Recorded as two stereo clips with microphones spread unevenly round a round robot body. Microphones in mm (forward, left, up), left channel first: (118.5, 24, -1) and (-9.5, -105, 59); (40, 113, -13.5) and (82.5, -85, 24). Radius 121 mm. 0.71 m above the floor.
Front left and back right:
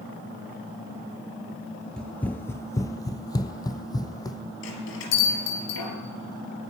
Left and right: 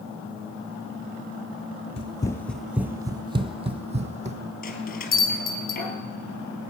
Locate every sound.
2.0 s running footsteps: 165° left, 0.8 m; by 4.4 s 35° right, 1.6 m
4.6 s a bell: 55° left, 3.5 m